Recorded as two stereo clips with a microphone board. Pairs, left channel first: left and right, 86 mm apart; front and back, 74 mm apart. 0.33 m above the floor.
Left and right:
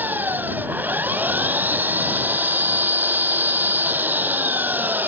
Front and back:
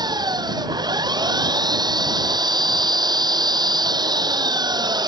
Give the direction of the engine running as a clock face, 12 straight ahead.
5 o'clock.